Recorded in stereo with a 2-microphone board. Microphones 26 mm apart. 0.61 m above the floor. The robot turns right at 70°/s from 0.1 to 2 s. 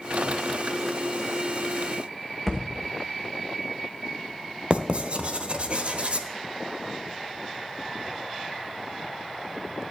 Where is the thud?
Centre (ahead or behind), 2.5 m.